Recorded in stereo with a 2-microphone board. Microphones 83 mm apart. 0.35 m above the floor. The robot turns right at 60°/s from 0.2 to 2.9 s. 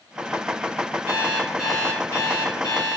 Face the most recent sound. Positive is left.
turn(degrees=80)